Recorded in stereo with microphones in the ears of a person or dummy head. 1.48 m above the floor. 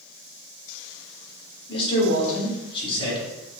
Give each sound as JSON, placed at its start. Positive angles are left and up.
{"t": 1.7, "sound": "a man speaking", "side_deg": 30, "distance_m": 1.1}